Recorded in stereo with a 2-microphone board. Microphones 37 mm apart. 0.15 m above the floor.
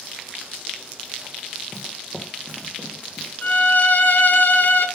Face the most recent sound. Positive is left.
turn(degrees=60)  # may be behind; listen again after turning